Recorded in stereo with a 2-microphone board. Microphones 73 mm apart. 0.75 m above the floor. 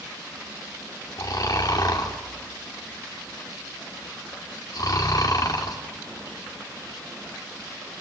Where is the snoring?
60° left (ahead or behind), 2.5 m.